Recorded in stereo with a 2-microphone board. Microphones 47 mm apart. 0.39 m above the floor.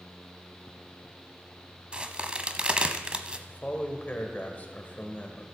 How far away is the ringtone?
I don't hear a ringtone.